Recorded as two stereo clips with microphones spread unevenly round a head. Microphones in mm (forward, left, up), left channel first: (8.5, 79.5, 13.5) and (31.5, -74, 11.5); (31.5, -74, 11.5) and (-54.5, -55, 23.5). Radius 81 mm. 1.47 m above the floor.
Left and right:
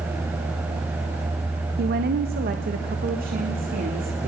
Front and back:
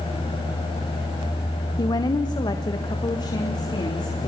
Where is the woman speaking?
55° right, 0.8 m; by 4.3 s 50° right, 3 m.